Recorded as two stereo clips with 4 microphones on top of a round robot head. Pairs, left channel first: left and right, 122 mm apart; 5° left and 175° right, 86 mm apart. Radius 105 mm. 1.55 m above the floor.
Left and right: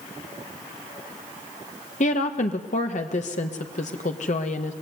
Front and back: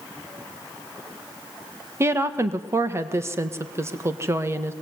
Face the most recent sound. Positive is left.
turn(degrees=125)